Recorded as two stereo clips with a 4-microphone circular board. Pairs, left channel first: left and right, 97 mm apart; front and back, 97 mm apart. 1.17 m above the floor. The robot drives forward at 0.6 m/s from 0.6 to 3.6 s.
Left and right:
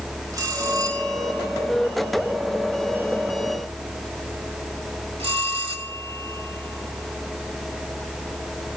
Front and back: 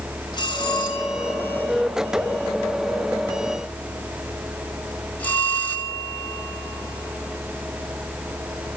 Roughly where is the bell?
Ahead right.